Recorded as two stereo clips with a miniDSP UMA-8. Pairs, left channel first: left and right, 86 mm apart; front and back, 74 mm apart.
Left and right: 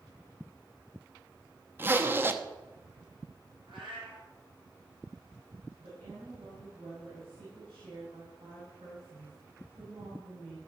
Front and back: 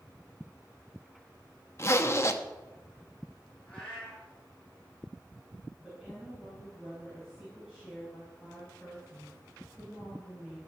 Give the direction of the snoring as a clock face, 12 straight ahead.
No snoring in this recording.